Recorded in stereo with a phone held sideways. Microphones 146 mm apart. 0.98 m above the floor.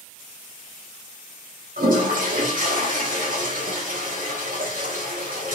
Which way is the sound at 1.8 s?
70° right (ahead or behind).